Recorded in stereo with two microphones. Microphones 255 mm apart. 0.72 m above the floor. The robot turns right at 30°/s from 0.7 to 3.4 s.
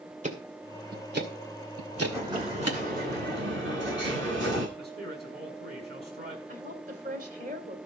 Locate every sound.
0.2 s ticking: 30° right (ahead or behind), 2 m; by 2.8 s 75° right (ahead or behind), 2 m
1.9 s an explosion: 175° right, 9.5 m; by 4.7 s 130° right, 9.5 m
4.8 s a man speaking: 40° right (ahead or behind), 6.5 m
6.5 s a woman speaking: 35° right (ahead or behind), 3 m